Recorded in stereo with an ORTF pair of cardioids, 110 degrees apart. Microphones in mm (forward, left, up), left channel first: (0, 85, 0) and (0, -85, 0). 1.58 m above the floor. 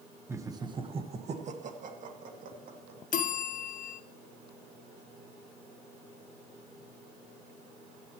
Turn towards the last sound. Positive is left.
turn(degrees=50)